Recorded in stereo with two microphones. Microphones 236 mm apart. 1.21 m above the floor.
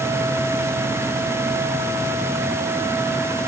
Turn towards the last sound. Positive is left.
No sound to turn to.